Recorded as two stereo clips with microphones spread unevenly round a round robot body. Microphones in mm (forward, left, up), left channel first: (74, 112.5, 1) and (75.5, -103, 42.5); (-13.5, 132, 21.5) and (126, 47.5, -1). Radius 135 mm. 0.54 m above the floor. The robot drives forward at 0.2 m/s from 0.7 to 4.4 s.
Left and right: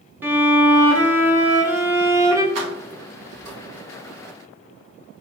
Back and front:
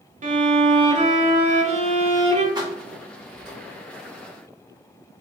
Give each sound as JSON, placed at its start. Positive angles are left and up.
{"t": 0.2, "sound": "a violin", "azimuth_deg": -5, "distance_m": 1.1}
{"t": 2.5, "sound": "keys jangling", "azimuth_deg": -105, "distance_m": 1.7}